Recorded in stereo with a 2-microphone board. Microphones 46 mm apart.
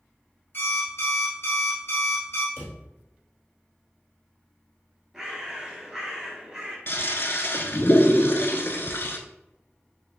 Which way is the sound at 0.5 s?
60° left (ahead or behind).